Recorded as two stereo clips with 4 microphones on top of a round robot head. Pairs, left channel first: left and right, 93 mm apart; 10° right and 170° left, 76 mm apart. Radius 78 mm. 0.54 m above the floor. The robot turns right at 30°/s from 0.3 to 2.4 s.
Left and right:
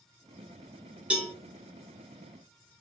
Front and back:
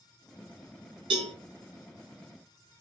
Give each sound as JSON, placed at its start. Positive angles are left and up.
{"t": 1.1, "sound": "a cowbell", "azimuth_deg": -170, "distance_m": 0.8}